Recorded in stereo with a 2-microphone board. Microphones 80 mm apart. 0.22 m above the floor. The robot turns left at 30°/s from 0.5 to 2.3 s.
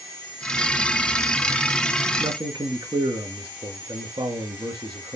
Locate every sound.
2.2 s a man speaking: 70° right (ahead or behind), 3.5 m